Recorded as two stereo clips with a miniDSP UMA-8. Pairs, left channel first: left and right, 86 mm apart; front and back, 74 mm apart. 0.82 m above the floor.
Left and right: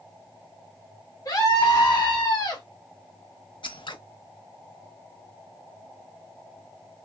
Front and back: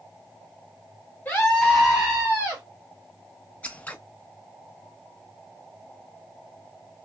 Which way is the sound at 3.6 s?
70° left.